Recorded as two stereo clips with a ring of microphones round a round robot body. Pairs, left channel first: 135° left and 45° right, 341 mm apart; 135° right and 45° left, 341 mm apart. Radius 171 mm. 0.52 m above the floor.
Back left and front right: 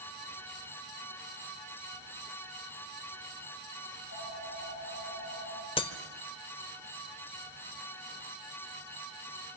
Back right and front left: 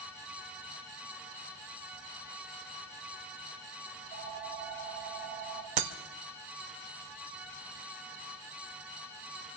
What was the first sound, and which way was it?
A phone ringing, 75° left.